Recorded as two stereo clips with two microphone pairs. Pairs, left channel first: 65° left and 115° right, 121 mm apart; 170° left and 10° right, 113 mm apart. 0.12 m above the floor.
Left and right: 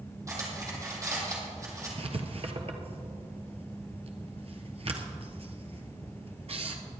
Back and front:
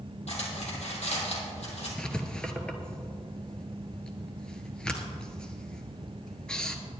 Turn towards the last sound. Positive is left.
turn(degrees=-105)